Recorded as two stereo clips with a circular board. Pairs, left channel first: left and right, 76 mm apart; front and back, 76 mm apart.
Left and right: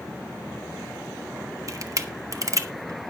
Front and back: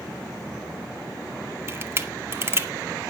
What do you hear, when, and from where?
1.7 s a camera shutter: 130° right, 1.1 m